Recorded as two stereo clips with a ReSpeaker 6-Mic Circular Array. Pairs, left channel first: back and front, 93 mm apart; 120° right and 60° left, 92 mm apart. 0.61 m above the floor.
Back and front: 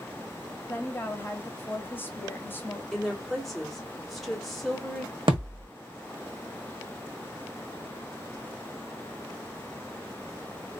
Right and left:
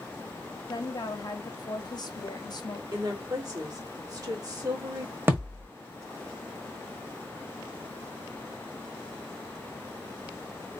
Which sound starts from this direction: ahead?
A thud, at 5.3 s.